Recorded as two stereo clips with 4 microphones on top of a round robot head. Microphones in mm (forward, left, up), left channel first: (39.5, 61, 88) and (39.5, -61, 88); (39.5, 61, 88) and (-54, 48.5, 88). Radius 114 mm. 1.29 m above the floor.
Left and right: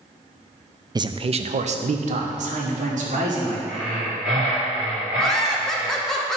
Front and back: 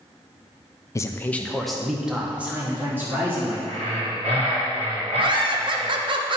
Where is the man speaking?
40° right, 0.6 m; by 3.6 s 105° right, 1.9 m.